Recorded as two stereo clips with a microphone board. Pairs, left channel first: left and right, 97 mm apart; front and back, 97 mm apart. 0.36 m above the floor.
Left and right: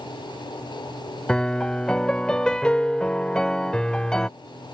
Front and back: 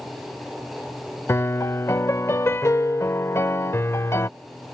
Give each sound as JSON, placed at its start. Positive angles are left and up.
{"t": 1.3, "sound": "a piano", "azimuth_deg": 15}